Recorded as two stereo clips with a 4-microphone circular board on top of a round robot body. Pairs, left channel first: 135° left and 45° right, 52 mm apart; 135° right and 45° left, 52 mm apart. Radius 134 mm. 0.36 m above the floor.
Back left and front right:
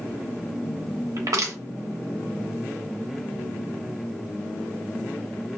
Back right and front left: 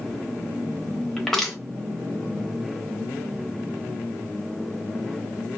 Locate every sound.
1.2 s crushing: 50° right, 1.1 m